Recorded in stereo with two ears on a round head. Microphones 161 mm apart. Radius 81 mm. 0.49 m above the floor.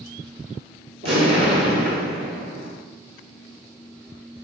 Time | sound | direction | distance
1.0 | an explosion | 35° right (ahead or behind) | 2.5 m